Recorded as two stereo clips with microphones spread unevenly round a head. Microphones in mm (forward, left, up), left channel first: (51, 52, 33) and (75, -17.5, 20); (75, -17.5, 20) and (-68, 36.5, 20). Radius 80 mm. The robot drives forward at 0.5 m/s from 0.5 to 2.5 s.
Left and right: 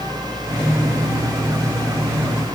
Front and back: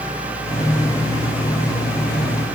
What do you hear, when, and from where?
Only background noise.